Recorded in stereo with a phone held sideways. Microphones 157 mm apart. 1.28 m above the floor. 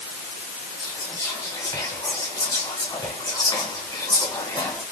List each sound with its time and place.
0.8 s whispering: 25° left (ahead or behind), 1.5 m